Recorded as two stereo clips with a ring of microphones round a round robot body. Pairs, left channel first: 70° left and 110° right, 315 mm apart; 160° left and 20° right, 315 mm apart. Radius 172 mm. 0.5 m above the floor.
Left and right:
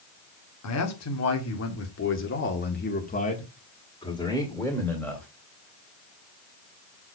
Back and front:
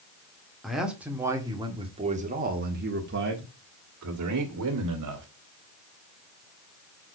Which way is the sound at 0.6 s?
70° left.